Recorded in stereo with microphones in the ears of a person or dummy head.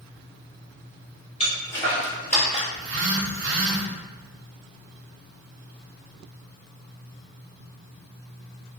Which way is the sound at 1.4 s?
25° left (ahead or behind).